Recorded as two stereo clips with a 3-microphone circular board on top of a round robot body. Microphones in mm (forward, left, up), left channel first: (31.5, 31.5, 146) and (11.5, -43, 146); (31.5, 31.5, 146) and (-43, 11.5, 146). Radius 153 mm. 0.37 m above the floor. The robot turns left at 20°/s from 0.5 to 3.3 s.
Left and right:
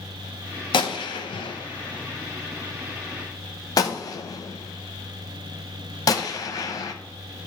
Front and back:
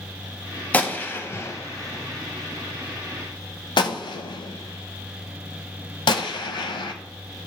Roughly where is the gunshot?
Left.